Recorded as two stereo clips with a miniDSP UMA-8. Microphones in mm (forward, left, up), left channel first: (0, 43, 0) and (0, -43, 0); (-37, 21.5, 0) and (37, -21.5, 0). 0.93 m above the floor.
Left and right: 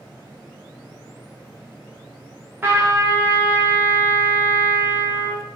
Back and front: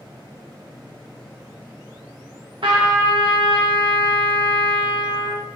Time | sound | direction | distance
2.6 | a trumpet | 25° right | 1.0 m